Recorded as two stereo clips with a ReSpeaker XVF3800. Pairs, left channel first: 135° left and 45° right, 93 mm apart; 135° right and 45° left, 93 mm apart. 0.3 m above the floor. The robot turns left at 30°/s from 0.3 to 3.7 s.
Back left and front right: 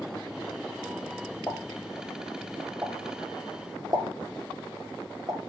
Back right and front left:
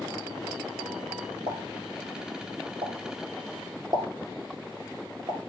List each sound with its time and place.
1.5 s a pop: 70° left, 1.0 m; by 5.4 s straight ahead, 1.0 m